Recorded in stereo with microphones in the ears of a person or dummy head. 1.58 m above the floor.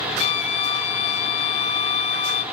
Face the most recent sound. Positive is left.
turn(degrees=35)  # may be behind; listen again after turning